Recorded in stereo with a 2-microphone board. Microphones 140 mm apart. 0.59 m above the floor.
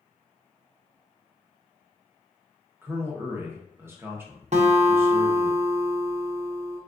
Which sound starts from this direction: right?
A guitar, at 4.5 s.